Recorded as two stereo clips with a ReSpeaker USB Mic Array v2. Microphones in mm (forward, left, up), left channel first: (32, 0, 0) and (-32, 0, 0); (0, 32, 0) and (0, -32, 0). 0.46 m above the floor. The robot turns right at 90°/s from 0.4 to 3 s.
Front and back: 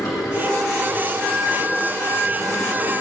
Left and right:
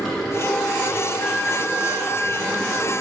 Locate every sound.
0.0 s running water: straight ahead, 5 m; by 3.0 s 125° right, 5 m
1.2 s a flute: 45° left, 5 m; by 2.9 s 160° right, 5 m